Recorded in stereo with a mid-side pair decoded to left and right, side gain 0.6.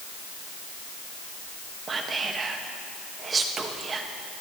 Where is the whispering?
35° right, 2.0 m.